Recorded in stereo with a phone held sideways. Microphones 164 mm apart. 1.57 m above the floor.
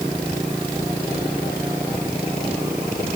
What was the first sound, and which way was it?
Only background noise.